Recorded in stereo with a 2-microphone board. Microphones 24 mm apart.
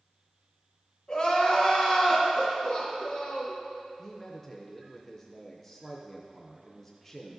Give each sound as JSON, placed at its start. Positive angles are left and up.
{"t": 1.1, "sound": "crying", "side_deg": 40, "distance_m": 1.7}
{"t": 4.0, "sound": "a man speaking", "side_deg": 10, "distance_m": 0.5}